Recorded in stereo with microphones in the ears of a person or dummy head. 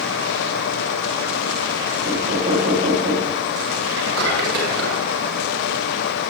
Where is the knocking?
40° right (ahead or behind), 8 m.